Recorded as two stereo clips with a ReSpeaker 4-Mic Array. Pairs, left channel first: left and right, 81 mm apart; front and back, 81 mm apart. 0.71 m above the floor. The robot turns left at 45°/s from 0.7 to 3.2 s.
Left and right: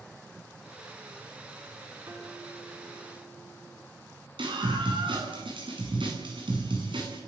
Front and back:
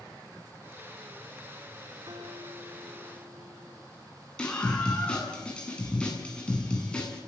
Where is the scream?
80° right, 8.5 m.